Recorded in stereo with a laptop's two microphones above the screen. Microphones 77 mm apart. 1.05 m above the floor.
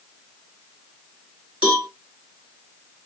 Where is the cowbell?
15° right (ahead or behind), 2.5 m.